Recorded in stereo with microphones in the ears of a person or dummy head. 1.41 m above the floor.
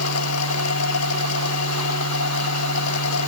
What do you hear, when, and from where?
0.0 s a machine running: 85° left